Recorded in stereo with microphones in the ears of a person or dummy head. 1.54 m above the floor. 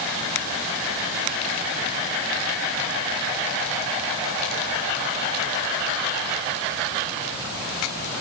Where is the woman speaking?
No woman speaking in this recording.